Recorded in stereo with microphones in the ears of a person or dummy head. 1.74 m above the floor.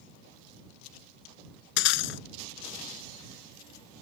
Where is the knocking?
No knocking in this recording.